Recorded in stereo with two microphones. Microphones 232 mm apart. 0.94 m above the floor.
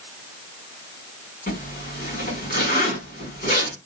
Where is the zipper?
40° left (ahead or behind), 3 m.